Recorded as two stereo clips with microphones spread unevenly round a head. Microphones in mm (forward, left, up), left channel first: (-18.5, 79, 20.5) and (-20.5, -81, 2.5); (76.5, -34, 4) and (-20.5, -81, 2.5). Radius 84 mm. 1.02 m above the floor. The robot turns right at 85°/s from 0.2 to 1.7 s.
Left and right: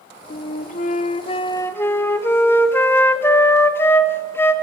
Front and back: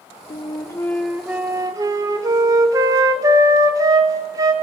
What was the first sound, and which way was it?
A flute, 50° left.